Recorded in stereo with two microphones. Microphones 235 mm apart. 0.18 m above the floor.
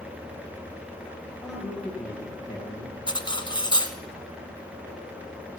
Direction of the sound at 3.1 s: 20° left (ahead or behind).